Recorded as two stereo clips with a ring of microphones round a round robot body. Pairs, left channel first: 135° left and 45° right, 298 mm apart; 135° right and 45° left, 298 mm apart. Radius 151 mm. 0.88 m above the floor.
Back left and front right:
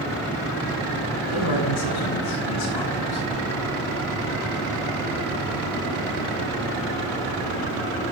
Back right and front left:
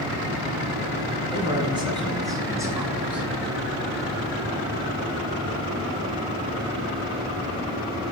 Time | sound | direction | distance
1.3 | a man speaking | 115° left | 9 m